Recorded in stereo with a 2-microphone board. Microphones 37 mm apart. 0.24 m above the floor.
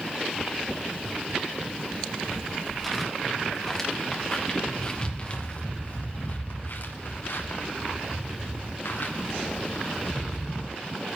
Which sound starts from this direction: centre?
Footsteps, at 1.9 s.